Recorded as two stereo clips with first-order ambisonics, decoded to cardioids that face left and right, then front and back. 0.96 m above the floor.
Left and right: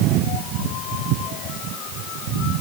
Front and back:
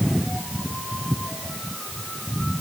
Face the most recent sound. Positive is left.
No sound to turn to.